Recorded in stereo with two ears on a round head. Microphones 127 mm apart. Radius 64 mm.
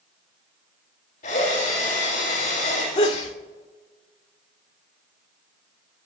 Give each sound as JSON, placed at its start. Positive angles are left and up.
{"t": 1.2, "sound": "a drill", "side_deg": 55, "distance_m": 8.5}
{"t": 3.0, "sound": "a sneeze", "side_deg": 50, "distance_m": 2.0}